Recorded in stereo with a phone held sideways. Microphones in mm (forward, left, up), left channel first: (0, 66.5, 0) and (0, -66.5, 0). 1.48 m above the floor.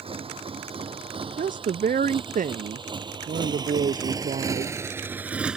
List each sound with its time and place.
0.0 s a motorcycle: 45° right (ahead or behind); by 5.6 s 5° right (ahead or behind)
1.4 s a woman speaking: 80° right